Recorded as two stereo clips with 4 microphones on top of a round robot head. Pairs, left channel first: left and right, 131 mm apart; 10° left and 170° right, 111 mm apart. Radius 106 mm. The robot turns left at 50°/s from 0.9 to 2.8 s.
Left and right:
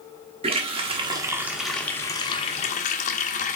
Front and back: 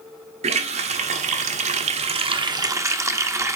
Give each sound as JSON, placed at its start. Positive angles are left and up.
{"t": 0.4, "sound": "a running tap", "azimuth_deg": -140, "distance_m": 0.6}